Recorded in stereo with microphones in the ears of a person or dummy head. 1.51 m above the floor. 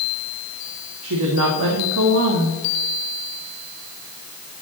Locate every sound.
1.0 s a woman speaking: 75° right (ahead or behind), 1.6 m